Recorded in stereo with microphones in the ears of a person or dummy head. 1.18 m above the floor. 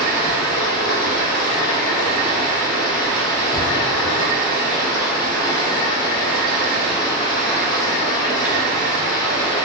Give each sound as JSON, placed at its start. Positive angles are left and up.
{"t": 0.0, "sound": "running water", "side_deg": 20, "distance_m": 1.5}